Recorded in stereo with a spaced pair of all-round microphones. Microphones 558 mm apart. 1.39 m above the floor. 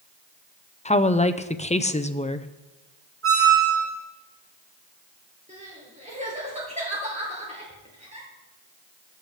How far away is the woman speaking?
About 0.5 m.